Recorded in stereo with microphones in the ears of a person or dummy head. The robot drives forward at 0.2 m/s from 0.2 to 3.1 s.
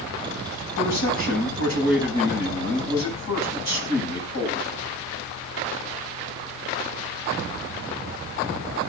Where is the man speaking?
60° left (ahead or behind), 10 m; by 4.7 s 55° left (ahead or behind), 10 m.